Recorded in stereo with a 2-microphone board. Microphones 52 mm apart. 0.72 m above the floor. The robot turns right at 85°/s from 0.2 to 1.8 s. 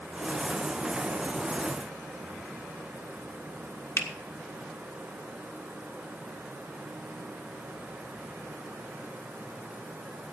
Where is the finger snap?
60° left (ahead or behind), 1.4 m.